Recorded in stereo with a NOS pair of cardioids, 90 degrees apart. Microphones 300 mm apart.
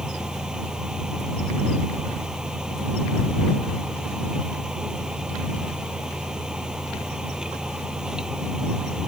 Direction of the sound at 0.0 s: Straight ahead.